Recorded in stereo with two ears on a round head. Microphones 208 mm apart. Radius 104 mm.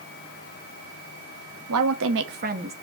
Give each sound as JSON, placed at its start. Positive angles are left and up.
{"t": 1.7, "sound": "a woman speaking", "side_deg": -75, "distance_m": 1.3}